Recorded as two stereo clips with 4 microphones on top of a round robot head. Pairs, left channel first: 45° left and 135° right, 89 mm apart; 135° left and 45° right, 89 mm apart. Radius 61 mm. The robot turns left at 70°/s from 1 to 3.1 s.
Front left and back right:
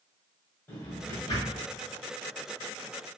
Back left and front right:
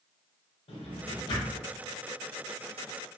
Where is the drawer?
115° left, 1.2 m; by 1.6 s 70° left, 1.2 m.